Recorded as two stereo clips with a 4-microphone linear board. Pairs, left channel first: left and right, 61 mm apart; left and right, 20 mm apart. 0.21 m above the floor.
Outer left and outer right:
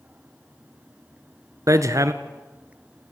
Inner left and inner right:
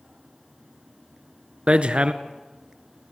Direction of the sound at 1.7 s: 60° right (ahead or behind).